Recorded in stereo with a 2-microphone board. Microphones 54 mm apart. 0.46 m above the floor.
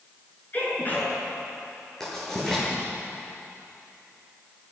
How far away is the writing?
About 9 m.